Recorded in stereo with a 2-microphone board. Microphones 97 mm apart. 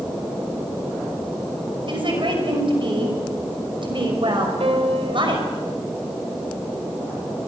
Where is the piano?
85° right, 3 m.